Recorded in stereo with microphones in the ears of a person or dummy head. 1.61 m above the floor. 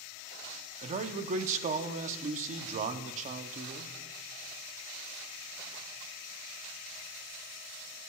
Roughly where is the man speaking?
Right.